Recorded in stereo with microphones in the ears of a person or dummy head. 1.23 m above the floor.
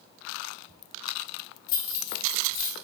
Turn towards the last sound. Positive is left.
turn(degrees=55)  # may be behind; listen again after turning